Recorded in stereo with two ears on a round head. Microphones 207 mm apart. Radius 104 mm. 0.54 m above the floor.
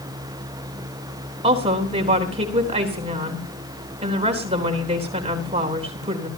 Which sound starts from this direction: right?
A woman speaking, at 1.4 s.